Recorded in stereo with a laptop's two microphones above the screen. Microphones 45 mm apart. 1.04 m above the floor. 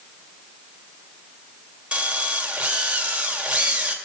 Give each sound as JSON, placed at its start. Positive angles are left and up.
{"t": 1.9, "sound": "a drill", "side_deg": -25, "distance_m": 2.0}